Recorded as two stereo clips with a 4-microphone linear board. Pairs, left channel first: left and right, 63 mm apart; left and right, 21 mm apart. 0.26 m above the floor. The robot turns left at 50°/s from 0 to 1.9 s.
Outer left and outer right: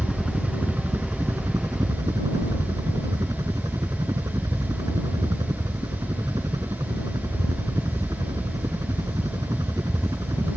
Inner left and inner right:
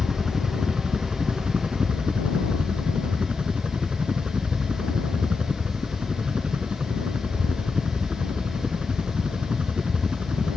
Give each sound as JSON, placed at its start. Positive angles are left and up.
{"t": 0.0, "sound": "a helicopter", "azimuth_deg": -5}